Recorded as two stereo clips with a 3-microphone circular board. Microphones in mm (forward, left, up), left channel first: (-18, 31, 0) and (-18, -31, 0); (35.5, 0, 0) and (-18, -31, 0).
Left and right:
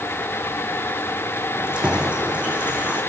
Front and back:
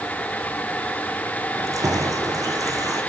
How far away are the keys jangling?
About 4 m.